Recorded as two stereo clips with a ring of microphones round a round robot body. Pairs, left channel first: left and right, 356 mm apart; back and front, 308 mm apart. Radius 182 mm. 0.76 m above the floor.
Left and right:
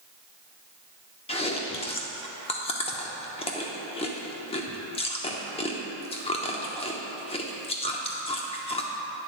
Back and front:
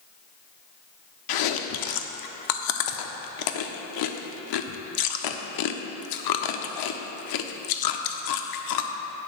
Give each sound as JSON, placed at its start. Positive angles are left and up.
{"t": 1.3, "sound": "chewing", "azimuth_deg": 165, "distance_m": 0.7}